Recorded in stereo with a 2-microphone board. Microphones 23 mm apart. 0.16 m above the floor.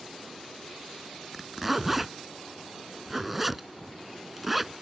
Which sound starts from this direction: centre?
A zipper, at 1.3 s.